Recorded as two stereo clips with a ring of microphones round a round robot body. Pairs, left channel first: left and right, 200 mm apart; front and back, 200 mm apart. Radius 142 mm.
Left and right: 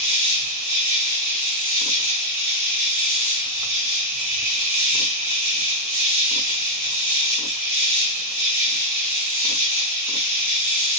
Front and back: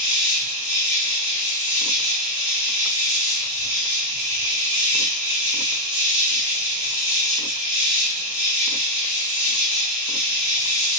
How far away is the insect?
About 1.9 m.